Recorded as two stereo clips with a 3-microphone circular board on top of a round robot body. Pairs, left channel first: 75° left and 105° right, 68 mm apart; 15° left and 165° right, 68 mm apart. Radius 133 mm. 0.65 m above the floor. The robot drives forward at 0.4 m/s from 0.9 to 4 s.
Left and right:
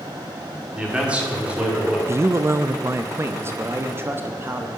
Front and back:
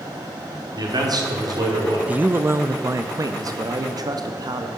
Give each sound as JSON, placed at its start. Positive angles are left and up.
{"t": 0.8, "sound": "a man speaking", "azimuth_deg": 180, "distance_m": 3.0}
{"t": 2.1, "sound": "a man speaking", "azimuth_deg": -110, "distance_m": 0.7}